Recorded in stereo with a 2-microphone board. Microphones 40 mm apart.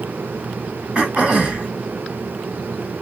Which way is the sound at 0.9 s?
25° right (ahead or behind).